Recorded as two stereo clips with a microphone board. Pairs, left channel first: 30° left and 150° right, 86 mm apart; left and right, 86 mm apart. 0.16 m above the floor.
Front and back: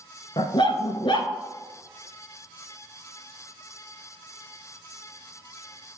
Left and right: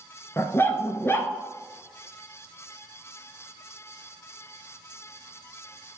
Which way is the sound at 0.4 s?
30° left.